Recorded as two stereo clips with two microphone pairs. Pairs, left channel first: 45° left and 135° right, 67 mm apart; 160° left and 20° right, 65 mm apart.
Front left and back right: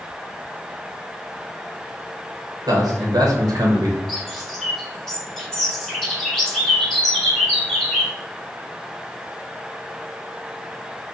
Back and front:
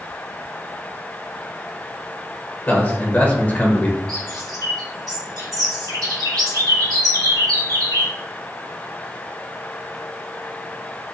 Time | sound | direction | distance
2.7 | a man speaking | 140° right | 1.3 m
4.1 | a bird | 35° right | 1.4 m